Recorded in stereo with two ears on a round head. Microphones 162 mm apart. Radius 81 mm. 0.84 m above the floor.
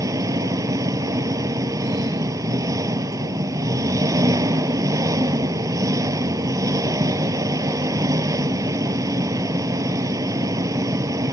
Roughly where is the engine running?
Centre.